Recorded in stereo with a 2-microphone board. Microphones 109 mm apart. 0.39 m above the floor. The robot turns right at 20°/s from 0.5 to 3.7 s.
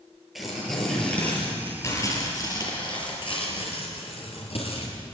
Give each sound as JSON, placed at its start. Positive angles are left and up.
{"t": 0.3, "sound": "tearing paper", "azimuth_deg": 0, "distance_m": 7.0}